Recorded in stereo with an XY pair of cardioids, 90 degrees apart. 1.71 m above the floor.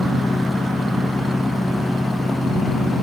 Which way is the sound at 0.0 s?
10° left.